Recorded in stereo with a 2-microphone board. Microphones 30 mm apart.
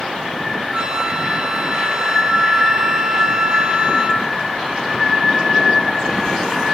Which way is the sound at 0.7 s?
30° right (ahead or behind).